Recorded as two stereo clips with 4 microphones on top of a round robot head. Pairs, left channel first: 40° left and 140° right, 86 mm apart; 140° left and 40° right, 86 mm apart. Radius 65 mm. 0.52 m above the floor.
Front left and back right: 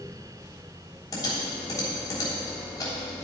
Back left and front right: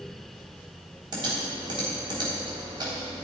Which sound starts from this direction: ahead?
Typing on a keyboard, at 1.1 s.